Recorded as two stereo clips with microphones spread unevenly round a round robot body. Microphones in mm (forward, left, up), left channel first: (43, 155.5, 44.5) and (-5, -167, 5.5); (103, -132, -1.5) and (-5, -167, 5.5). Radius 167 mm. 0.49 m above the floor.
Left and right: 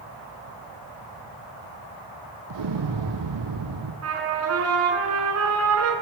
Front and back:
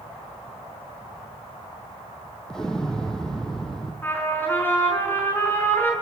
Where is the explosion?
65° right, 3.5 m.